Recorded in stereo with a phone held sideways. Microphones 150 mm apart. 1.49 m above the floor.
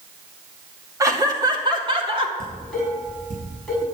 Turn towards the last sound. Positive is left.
turn(degrees=5)  # may be behind; listen again after turning